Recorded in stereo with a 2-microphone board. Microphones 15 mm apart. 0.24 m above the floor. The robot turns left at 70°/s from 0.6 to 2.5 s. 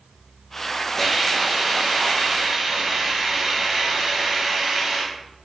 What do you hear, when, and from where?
1.0 s a hiss: 10° right, 1.1 m; by 5.1 s 120° right, 1.1 m